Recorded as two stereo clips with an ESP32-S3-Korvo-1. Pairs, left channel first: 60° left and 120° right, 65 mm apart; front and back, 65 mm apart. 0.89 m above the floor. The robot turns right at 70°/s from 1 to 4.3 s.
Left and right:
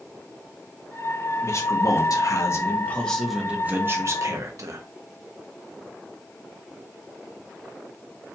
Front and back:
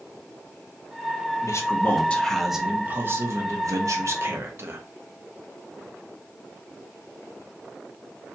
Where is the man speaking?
20° left, 0.9 m; by 4.8 s 135° right, 0.9 m.